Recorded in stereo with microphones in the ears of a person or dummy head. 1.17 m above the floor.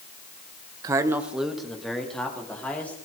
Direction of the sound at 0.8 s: 20° right (ahead or behind).